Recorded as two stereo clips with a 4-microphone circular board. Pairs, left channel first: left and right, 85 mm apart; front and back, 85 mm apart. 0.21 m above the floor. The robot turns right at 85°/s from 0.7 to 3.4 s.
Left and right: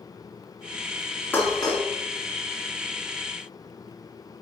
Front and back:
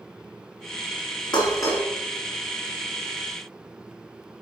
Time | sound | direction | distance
1.3 | dishes clattering | 25° left | 1.9 m